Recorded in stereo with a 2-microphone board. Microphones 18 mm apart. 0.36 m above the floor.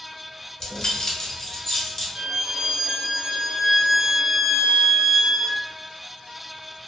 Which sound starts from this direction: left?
Keys jangling, at 0.6 s.